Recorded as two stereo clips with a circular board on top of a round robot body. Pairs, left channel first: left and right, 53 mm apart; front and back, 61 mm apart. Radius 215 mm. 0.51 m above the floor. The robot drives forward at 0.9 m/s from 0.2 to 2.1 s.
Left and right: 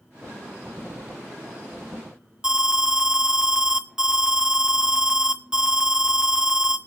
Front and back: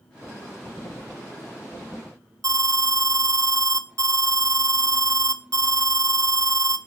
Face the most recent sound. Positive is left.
turn(degrees=-165)